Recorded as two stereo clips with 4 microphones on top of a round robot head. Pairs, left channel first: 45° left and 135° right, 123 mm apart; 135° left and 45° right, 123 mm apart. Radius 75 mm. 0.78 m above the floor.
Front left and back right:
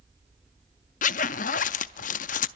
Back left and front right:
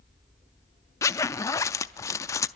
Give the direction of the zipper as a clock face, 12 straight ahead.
10 o'clock.